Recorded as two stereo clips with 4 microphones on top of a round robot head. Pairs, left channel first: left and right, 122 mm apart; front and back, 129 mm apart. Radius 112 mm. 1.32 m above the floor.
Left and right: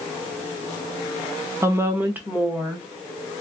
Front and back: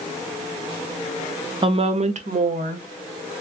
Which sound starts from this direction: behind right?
A woman speaking, at 1.6 s.